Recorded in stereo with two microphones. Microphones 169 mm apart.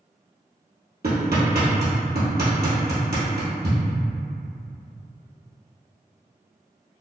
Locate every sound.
1.0 s hammering: 70° right (ahead or behind), 1.4 m